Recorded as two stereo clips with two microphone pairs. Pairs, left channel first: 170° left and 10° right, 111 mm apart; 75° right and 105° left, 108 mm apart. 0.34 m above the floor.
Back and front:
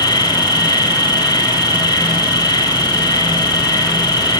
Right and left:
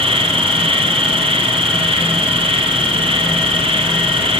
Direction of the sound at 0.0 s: 125° left.